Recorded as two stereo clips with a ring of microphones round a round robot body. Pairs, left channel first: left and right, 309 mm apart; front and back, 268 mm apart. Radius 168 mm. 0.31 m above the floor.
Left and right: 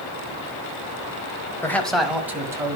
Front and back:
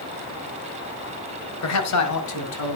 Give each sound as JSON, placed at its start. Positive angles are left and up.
{"t": 1.6, "sound": "a man speaking", "azimuth_deg": 10, "distance_m": 1.7}